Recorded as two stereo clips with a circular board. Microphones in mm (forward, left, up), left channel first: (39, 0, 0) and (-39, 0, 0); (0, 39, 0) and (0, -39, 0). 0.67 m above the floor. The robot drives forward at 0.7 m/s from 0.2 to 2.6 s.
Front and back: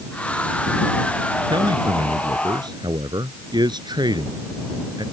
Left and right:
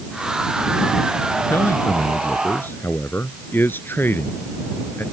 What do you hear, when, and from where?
1.5 s a man speaking: 150° left; by 5.0 s 155° left